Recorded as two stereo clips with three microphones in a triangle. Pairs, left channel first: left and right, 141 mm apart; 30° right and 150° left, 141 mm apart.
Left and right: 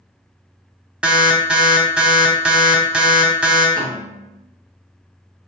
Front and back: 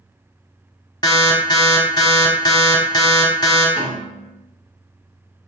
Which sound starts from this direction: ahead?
An alarm, at 1.0 s.